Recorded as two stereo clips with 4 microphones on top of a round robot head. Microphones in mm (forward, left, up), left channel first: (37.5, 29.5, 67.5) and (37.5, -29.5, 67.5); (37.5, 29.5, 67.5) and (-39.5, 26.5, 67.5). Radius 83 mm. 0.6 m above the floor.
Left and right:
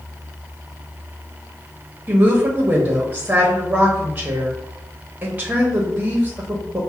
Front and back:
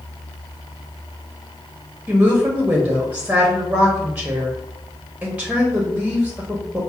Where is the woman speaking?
120° right, 0.9 m.